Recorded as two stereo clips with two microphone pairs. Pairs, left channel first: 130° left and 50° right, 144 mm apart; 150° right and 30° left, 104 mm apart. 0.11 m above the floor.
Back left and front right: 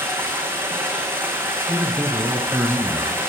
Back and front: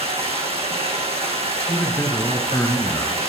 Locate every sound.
0.0 s running water: 25° left, 2 m
1.7 s a man speaking: 140° right, 1.3 m